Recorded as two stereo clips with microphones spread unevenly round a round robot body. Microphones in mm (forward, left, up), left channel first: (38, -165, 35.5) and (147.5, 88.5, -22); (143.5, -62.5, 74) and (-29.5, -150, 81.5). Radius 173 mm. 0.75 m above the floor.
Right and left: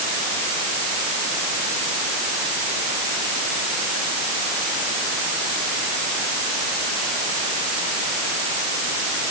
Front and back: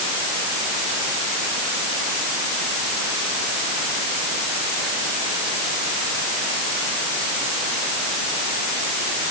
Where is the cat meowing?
I don't hear a cat meowing.